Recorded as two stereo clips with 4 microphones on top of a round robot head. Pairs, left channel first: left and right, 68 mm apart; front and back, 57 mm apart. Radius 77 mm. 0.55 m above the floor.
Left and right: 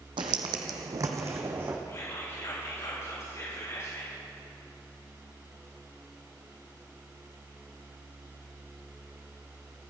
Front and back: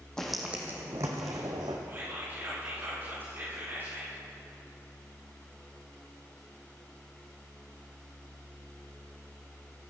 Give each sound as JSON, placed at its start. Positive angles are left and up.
{"t": 0.2, "sound": "footsteps", "azimuth_deg": -85, "distance_m": 1.2}
{"t": 1.9, "sound": "whispering", "azimuth_deg": 130, "distance_m": 5.0}